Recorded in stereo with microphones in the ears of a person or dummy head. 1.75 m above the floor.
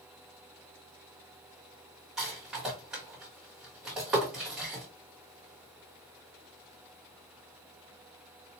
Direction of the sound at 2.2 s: 5° right (ahead or behind).